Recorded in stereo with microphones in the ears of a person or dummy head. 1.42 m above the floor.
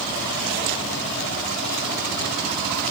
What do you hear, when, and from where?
Only background noise.